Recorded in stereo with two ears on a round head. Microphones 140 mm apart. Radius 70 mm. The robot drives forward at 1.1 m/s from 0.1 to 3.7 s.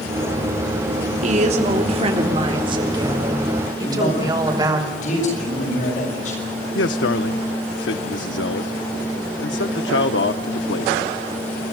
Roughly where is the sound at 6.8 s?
Left.